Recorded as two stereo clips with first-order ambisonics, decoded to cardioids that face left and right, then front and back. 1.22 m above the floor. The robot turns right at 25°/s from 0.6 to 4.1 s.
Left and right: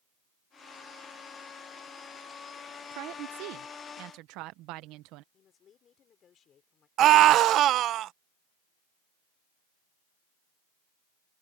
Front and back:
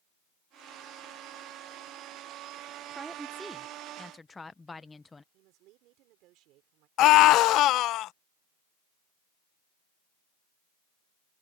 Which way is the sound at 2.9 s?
105° right.